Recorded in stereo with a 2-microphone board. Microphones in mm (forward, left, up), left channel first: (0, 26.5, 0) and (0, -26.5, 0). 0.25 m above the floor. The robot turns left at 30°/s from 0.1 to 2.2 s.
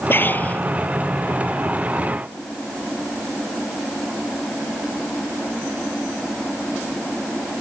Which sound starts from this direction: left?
Breathing, at 0.1 s.